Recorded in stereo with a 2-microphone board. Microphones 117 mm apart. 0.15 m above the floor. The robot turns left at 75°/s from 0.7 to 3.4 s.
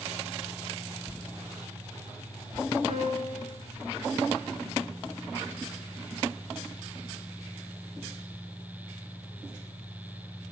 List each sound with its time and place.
2.9 s a piano: 75° right, 6 m; by 3.6 s 115° right, 6 m